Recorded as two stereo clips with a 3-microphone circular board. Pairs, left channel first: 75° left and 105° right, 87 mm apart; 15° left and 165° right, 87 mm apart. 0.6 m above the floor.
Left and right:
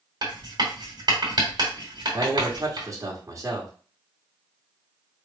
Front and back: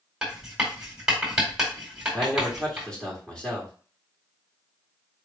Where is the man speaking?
60° right, 1.8 m.